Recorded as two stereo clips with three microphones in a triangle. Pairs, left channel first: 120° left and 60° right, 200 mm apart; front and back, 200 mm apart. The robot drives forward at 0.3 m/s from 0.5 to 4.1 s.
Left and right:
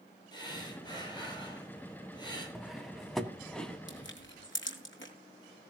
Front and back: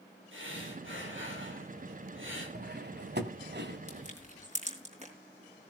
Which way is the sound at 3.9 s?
125° left.